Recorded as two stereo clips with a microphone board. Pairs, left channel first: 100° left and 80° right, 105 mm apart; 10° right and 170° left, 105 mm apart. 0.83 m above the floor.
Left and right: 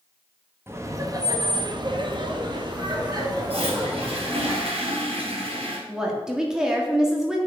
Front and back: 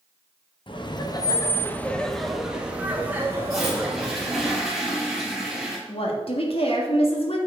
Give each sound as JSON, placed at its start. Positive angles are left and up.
{"t": 0.7, "sound": "laughter", "azimuth_deg": -20, "distance_m": 1.1}
{"t": 3.5, "sound": "a toilet flushing", "azimuth_deg": -105, "distance_m": 3.5}
{"t": 5.9, "sound": "a woman speaking", "azimuth_deg": 5, "distance_m": 1.6}